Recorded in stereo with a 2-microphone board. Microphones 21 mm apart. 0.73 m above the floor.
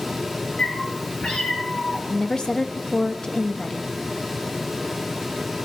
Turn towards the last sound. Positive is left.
turn(degrees=35)  # may be behind; listen again after turning